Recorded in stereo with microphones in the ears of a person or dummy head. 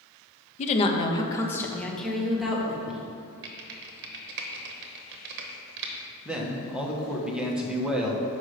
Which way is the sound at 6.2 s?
5° right (ahead or behind).